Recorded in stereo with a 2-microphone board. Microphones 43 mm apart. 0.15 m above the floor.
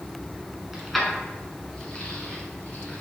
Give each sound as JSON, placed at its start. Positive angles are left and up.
{"t": 0.7, "sound": "keys jangling", "side_deg": -5, "distance_m": 1.2}